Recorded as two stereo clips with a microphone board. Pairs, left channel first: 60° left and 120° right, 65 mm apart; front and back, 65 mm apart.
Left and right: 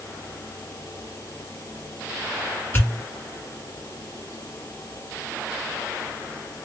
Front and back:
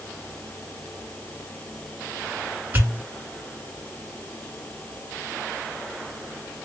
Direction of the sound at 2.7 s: 120° left.